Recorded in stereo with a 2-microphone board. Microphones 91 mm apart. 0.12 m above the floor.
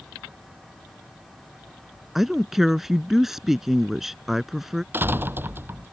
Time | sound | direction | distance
2.1 | a woman speaking | 5° right (ahead or behind) | ?
4.9 | a door slam | 20° right (ahead or behind) | ?